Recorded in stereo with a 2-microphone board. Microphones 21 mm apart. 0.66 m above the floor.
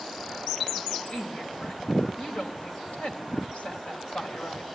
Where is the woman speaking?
65° left (ahead or behind), 4 m.